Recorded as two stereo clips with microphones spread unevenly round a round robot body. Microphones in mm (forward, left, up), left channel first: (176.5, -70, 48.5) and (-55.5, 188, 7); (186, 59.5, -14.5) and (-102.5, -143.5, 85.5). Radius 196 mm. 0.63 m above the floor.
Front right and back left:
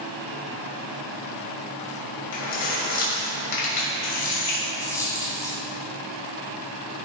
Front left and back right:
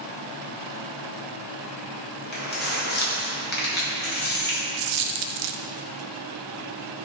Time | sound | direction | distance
2.3 | keys jangling | 25° right | 2.5 m
4.8 | a dropped coin | 130° right | 0.5 m